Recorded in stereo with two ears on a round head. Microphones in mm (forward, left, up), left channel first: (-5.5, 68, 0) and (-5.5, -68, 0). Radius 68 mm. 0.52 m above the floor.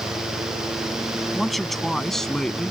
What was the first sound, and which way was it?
A man speaking, centre (ahead or behind).